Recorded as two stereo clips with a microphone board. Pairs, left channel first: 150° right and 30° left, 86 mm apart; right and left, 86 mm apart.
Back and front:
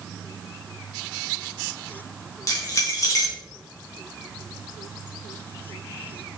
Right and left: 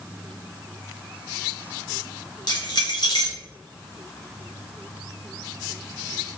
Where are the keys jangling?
105° right, 1.4 m.